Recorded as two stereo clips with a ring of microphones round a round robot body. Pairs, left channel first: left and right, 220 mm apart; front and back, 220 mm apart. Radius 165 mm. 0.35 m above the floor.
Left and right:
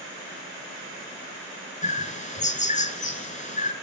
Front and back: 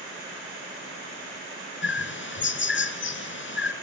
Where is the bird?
35° left, 3 m.